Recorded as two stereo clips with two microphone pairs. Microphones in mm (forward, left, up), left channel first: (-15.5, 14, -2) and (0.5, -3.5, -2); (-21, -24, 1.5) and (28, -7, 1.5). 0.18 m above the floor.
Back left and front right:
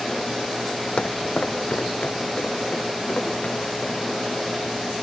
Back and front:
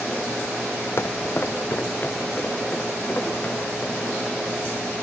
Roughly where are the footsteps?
Behind.